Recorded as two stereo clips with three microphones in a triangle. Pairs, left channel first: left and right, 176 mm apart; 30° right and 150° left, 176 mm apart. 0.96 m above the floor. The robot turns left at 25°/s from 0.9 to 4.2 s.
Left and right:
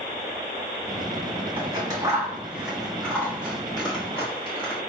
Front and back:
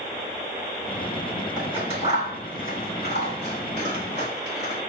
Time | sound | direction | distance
1.6 | scissors | 145° right | 3 m